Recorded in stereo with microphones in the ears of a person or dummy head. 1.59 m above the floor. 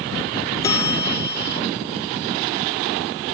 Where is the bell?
15° left (ahead or behind).